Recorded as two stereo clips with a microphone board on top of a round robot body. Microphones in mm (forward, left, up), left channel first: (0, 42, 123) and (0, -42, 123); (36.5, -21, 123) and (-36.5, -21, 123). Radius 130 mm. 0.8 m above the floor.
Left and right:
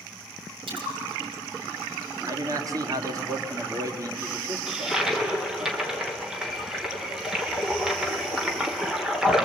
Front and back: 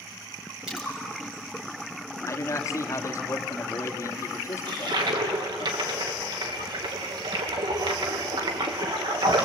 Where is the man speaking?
45° right, 2.5 m.